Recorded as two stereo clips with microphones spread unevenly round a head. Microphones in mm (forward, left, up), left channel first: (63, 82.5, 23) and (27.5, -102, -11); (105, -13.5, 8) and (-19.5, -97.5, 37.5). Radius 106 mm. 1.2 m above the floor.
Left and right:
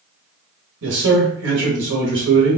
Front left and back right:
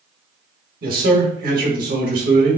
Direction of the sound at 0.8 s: 120° right.